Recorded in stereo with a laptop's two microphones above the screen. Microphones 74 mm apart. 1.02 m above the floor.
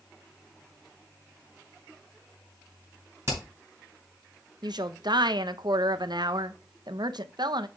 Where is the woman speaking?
70° right (ahead or behind), 0.5 m.